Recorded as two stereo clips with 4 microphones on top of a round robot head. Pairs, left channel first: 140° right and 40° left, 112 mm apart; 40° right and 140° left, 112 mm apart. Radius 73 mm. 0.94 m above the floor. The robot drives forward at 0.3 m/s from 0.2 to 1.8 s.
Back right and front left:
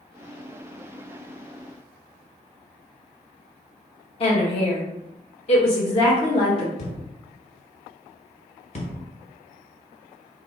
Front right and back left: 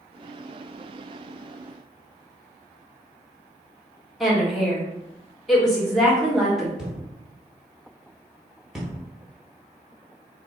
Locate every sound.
4.2 s a woman speaking: 130° right, 1.2 m
6.8 s a thud: 135° right, 0.7 m